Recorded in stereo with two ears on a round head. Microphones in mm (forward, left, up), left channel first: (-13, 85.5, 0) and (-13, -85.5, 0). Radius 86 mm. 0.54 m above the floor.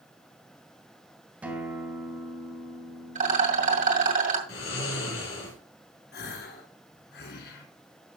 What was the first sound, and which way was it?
A guitar, 10° right (ahead or behind).